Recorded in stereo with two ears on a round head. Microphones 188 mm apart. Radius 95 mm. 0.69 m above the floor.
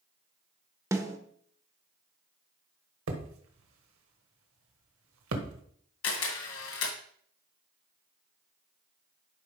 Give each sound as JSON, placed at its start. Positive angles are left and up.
{"t": 0.9, "sound": "a snare drum", "side_deg": -15, "distance_m": 0.9}
{"t": 3.1, "sound": "hammering", "side_deg": -85, "distance_m": 1.5}
{"t": 6.0, "sound": "a camera shutter", "side_deg": 80, "distance_m": 2.5}